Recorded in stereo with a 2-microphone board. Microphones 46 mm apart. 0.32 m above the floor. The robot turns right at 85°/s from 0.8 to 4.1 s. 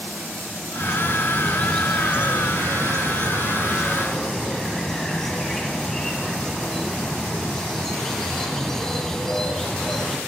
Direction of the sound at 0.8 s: 90° left.